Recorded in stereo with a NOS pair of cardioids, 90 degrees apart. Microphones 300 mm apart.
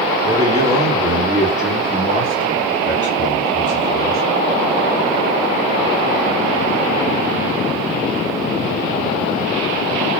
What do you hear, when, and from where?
0.2 s a man speaking: 15° right, 3 m; by 4.3 s 15° left, 4 m